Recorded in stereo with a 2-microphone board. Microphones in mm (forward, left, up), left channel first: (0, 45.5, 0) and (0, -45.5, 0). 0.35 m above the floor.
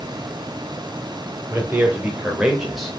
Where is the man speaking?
25° right (ahead or behind), 1.4 m; by 3.0 s 5° left (ahead or behind), 1.0 m.